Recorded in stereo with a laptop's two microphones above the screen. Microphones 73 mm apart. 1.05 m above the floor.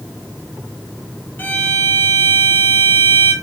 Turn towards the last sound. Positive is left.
turn(degrees=25)  # may be behind; listen again after turning